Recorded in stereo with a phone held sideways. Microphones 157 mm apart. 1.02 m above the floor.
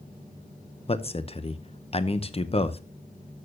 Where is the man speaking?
40° left (ahead or behind), 0.7 m.